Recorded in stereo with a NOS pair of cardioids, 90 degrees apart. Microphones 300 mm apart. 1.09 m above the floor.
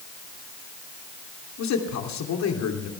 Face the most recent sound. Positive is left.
turn(degrees=65)